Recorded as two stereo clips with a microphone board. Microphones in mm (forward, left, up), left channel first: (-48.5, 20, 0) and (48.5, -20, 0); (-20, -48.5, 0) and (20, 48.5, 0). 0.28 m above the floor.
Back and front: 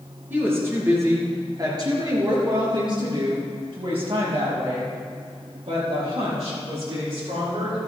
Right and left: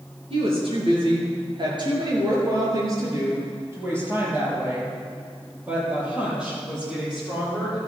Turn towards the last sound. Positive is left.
turn(degrees=-15)